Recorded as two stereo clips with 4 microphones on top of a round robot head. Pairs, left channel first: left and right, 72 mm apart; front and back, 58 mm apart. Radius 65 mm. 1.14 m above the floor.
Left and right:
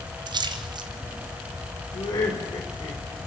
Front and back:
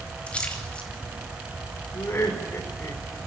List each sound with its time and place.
0.3 s a splash: 75° right, 3 m
1.9 s laughter: 50° left, 4.5 m